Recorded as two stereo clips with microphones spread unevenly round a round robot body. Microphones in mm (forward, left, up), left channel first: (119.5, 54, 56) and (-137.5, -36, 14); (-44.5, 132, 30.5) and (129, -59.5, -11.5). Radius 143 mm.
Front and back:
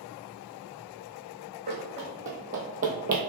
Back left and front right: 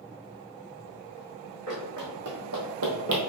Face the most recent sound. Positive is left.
turn(degrees=-100)